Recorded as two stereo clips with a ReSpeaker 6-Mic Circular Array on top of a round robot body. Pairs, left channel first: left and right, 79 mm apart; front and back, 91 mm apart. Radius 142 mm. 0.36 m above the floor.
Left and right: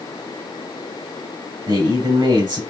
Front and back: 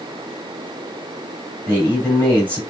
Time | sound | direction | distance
1.7 | a man speaking | 75° right | 3.5 m